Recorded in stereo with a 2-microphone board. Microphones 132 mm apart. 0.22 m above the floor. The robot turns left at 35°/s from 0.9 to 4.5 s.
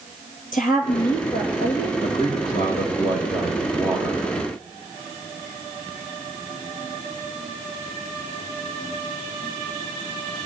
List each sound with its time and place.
0.5 s a woman speaking: 95° left, 4.5 m; by 1.9 s 60° left, 4.5 m
2.0 s a man speaking: 50° left, 6.5 m; by 4.3 s 25° right, 6.5 m